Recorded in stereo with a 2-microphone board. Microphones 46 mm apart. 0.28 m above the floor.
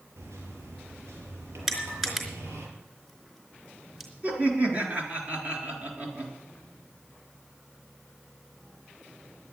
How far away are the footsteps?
I don't hear footsteps.